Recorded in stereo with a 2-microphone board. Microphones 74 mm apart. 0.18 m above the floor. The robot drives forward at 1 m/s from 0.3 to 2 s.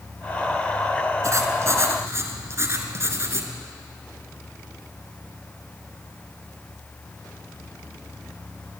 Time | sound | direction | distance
1.2 | writing | 45° right (ahead or behind) | 2.5 m